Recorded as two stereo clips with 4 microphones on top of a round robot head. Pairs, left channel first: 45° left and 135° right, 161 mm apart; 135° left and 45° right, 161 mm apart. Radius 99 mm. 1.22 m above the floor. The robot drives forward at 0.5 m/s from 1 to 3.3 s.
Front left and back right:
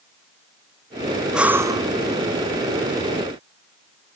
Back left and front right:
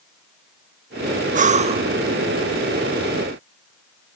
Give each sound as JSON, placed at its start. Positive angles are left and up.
{"t": 1.3, "sound": "breathing", "azimuth_deg": -50, "distance_m": 0.6}